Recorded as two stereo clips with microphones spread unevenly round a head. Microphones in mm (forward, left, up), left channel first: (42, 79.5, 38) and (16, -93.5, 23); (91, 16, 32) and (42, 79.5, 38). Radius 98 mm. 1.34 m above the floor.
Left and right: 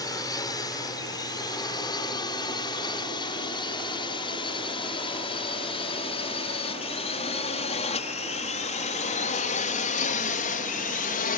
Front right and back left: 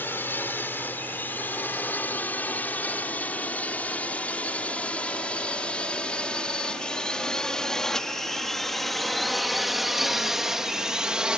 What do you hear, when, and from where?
0.0 s a drone: 10° left; by 11.4 s 50° left